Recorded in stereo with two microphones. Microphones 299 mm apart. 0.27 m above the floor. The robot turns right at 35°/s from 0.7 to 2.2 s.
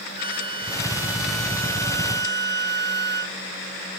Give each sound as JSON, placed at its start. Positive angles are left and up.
{"t": 0.2, "sound": "a flute", "azimuth_deg": 30}